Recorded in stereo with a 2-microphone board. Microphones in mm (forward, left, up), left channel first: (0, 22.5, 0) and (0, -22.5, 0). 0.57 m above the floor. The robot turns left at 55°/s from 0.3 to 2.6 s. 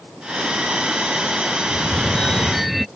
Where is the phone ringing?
50° left; by 2.9 s straight ahead.